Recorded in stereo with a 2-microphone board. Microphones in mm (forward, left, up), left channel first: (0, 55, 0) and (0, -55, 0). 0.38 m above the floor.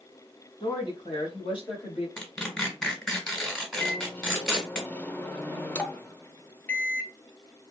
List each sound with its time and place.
0.6 s a woman speaking: 40° left (ahead or behind), 2.5 m; by 2.1 s 50° left (ahead or behind), 1.6 m
2.2 s tearing paper: 5° left (ahead or behind), 1.6 m
3.8 s a microwave: 15° left (ahead or behind), 0.6 m